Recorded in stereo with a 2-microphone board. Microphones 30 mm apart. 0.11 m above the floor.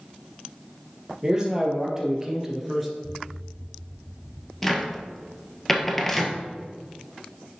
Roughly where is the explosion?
Centre.